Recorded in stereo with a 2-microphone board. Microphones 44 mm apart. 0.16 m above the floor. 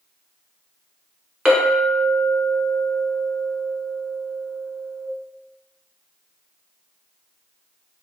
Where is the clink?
15° right (ahead or behind), 1.1 m.